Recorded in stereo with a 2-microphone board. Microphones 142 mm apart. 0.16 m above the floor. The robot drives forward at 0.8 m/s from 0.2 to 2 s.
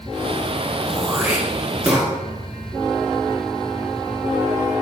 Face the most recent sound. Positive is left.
turn(degrees=-10)  # may be behind; listen again after turning